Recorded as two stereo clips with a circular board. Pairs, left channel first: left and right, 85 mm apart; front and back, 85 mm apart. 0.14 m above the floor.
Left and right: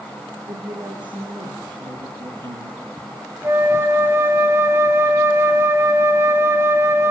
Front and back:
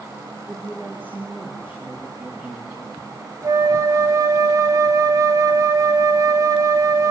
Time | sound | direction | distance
0.5 | a woman speaking | 110° right | 6.5 m
3.4 | a flute | 145° right | 1.6 m